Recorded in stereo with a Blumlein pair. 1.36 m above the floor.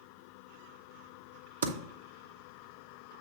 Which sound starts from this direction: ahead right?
Typing on a keyboard, at 1.6 s.